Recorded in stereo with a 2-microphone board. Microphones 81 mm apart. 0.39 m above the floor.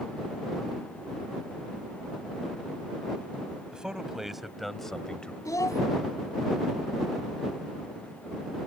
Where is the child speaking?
45° left (ahead or behind).